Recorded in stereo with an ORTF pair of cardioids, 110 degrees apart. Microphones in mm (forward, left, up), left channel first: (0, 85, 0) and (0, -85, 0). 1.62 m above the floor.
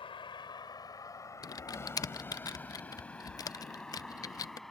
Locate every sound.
0.0 s a vehicle: 35° left; by 4.7 s straight ahead
1.4 s typing on a keyboard: 20° left